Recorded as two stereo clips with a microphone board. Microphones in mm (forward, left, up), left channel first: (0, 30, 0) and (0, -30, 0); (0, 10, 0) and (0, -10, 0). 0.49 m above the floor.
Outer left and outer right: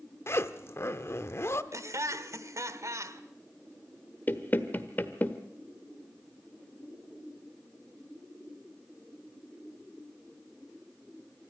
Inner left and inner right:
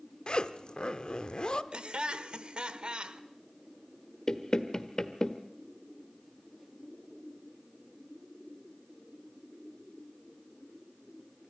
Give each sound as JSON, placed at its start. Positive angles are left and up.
{"t": 0.3, "sound": "a zipper", "side_deg": 45, "distance_m": 0.8}
{"t": 1.7, "sound": "laughter", "side_deg": -55, "distance_m": 1.4}
{"t": 4.3, "sound": "knocking", "side_deg": 35, "distance_m": 1.2}